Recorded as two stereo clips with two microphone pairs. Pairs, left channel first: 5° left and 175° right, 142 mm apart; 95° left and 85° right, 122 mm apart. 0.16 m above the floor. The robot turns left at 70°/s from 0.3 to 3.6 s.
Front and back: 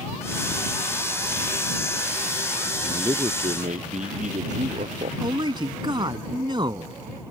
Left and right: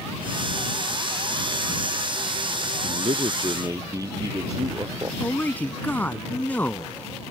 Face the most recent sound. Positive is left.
turn(degrees=160)